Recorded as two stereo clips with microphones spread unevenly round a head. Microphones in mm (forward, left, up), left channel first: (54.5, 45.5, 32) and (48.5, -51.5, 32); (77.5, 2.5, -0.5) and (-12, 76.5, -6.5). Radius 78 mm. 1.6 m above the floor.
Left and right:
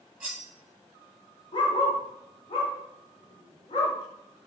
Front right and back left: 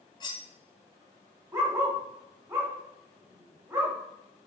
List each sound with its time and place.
0.2 s cutlery clinking: 25° right, 1.0 m
1.5 s a dog barking: 90° left, 1.6 m